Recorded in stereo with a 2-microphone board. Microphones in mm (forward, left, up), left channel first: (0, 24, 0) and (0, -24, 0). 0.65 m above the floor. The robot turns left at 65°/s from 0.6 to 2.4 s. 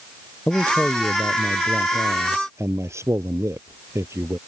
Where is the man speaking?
30° left; by 4.4 s 90° right.